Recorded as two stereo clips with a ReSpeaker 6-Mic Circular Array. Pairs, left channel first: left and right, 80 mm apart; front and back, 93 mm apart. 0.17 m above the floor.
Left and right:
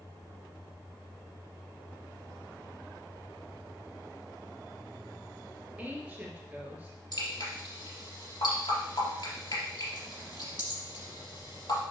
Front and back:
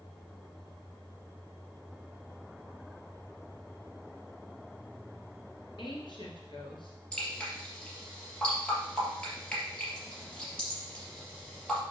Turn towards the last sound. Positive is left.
turn(degrees=80)